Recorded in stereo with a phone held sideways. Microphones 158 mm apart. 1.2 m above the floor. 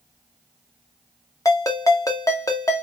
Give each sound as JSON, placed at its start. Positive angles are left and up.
{"t": 1.4, "sound": "a ringtone", "side_deg": 20, "distance_m": 0.6}